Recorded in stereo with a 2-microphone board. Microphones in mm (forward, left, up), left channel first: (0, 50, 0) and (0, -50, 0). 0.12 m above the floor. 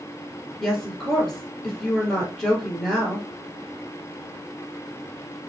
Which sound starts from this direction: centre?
A woman speaking, at 0.6 s.